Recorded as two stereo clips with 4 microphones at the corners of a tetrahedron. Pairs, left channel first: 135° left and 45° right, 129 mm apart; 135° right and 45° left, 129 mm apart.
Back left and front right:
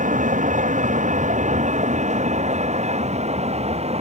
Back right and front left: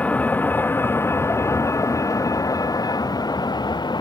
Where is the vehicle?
55° right; by 4.0 s 80° right.